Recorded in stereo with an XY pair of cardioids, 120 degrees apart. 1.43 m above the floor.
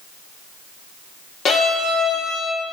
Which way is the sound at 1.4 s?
50° left.